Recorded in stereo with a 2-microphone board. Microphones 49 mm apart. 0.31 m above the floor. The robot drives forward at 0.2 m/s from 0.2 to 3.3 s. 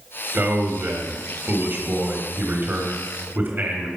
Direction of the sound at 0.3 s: 45° right (ahead or behind).